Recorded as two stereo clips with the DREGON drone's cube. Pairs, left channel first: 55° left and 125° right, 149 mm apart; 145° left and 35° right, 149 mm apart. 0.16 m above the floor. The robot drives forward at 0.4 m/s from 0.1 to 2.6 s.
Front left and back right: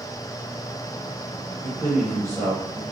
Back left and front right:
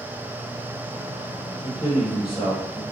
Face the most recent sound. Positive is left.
turn(degrees=180)